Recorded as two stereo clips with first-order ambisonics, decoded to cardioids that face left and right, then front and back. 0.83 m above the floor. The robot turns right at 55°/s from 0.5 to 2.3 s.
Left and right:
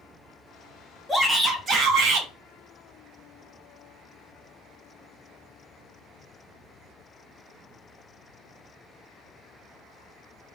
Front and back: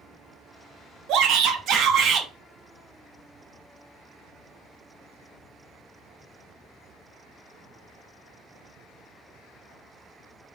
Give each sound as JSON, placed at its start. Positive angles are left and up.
{"t": 1.1, "sound": "a shout", "azimuth_deg": -175, "distance_m": 0.7}